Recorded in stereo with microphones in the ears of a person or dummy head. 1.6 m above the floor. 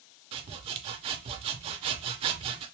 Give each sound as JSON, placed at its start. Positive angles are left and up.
{"t": 0.3, "sound": "sawing", "side_deg": -30, "distance_m": 0.5}